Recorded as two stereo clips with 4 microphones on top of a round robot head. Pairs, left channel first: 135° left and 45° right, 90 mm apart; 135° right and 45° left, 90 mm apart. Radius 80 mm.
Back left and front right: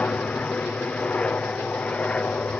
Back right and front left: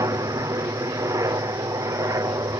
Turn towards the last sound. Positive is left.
turn(degrees=65)